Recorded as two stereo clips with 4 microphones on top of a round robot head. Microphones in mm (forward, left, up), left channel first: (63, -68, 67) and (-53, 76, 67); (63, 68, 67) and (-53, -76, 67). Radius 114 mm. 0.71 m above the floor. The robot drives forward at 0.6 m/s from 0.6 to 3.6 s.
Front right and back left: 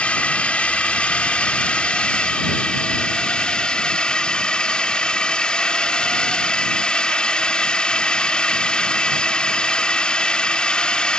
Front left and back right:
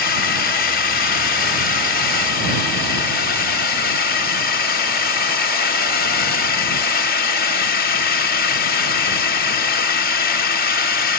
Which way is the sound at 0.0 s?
30° left.